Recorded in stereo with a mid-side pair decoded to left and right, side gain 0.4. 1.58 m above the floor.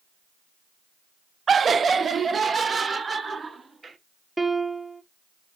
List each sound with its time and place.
1.5 s laughter: 50° right, 0.5 m; by 4.0 s 40° right, 3.5 m
4.4 s a piano: 20° right, 1.5 m